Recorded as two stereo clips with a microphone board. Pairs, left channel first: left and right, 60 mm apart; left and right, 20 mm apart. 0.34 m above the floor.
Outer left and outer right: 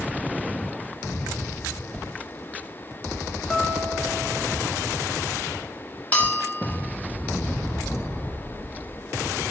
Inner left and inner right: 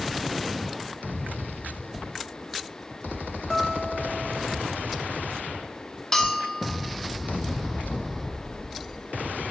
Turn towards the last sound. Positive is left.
turn(degrees=25)  # may be behind; listen again after turning